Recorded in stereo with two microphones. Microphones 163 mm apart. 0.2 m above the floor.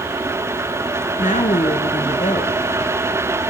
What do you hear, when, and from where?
1.2 s a woman speaking: 50° left (ahead or behind), 3 m